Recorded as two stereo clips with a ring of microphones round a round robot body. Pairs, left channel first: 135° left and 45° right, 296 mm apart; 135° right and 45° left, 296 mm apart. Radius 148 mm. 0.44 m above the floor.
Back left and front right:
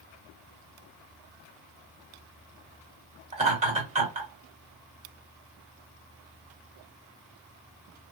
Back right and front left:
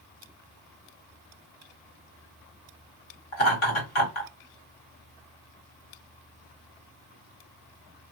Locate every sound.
3.3 s laughter: 110° right, 1.8 m